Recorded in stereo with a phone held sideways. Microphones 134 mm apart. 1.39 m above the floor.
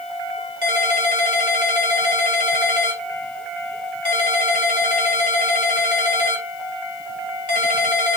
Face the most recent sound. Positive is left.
turn(degrees=75)  # may be behind; listen again after turning